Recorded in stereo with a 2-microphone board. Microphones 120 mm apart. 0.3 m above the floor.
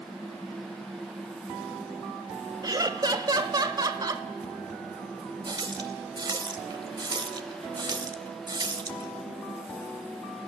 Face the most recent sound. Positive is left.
turn(degrees=-40)  # may be behind; listen again after turning